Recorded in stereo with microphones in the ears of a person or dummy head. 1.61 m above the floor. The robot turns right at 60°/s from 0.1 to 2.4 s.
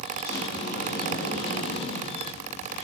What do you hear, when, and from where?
0.2 s a sliding door: 10° left, 1.0 m; by 2.8 s 140° left, 1.0 m